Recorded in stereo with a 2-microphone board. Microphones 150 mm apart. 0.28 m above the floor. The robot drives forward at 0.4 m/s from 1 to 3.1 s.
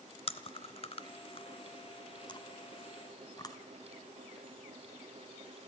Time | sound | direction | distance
0.3 | chewing | 40° left (ahead or behind) | 0.9 m